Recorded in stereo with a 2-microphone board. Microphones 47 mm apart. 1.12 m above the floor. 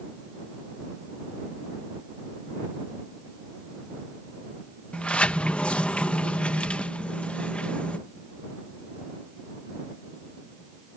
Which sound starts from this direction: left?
A sliding door, at 4.9 s.